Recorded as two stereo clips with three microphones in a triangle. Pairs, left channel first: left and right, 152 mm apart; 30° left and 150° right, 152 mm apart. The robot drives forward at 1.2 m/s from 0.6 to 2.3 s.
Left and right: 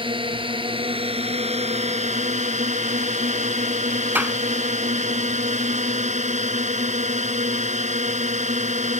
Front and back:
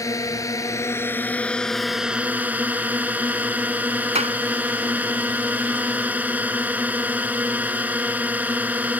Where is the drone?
40° right; by 9.0 s 70° right.